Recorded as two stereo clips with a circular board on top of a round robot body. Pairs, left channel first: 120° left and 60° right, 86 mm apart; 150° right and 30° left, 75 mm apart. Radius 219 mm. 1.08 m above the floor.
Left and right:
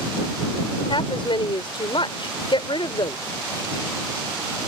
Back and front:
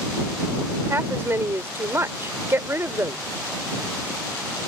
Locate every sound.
0.9 s a woman speaking: 90° left